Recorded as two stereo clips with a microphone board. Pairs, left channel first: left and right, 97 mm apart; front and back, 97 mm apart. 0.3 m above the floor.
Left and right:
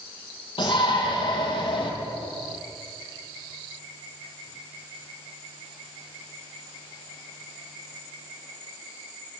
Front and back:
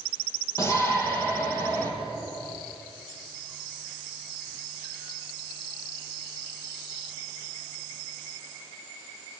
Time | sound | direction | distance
0.6 | a shout | 60° left | 8.5 m